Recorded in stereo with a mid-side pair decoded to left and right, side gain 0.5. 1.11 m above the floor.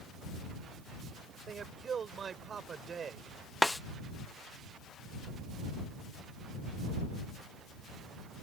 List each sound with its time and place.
1.5 s a man speaking: 45° right
3.6 s a snare drum: 10° left